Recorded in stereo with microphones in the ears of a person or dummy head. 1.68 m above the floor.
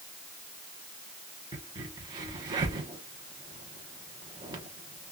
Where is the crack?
20° right (ahead or behind), 0.9 m.